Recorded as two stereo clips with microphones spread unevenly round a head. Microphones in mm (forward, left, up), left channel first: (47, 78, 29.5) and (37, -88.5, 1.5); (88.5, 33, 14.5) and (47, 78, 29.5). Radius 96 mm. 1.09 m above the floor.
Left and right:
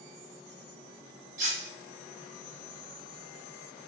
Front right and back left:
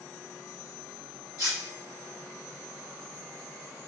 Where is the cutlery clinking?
150° right, 0.7 m.